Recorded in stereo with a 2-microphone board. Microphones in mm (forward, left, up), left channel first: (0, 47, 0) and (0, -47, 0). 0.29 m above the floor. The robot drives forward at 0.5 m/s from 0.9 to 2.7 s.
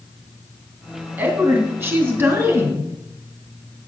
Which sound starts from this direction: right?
A woman speaking, at 1.2 s.